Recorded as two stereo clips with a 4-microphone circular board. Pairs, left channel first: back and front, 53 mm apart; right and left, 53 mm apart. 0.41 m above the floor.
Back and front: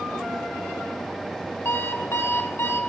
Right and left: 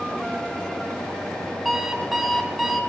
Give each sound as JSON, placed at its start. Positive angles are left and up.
{"t": 1.6, "sound": "an alarm clock", "azimuth_deg": 175, "distance_m": 0.8}